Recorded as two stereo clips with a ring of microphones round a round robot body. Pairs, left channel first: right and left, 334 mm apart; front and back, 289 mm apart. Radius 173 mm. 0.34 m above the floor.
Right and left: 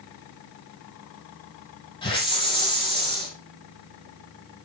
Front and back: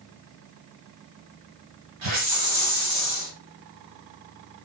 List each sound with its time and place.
2.0 s a hiss: 165° right, 4.5 m